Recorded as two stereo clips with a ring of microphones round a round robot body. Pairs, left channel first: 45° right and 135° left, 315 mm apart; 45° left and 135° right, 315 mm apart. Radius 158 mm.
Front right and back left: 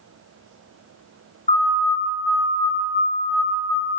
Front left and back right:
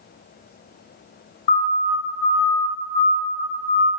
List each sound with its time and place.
1.5 s a siren: 30° left, 8.5 m; by 3.9 s 35° left, 10 m